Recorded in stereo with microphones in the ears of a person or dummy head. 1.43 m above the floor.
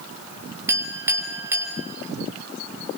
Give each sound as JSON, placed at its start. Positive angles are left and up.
{"t": 0.7, "sound": "a clink", "side_deg": -15, "distance_m": 5.0}